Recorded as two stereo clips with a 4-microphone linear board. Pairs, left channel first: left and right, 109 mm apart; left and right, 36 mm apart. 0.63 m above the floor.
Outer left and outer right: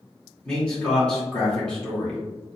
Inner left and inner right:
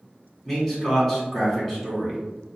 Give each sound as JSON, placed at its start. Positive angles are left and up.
{"t": 0.5, "sound": "a man speaking", "side_deg": 10, "distance_m": 1.8}